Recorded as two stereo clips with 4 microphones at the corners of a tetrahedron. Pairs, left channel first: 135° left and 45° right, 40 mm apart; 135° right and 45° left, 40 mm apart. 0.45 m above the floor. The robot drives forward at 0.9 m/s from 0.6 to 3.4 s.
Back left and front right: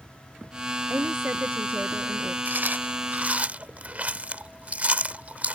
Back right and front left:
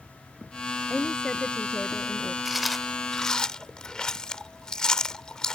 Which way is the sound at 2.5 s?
40° right.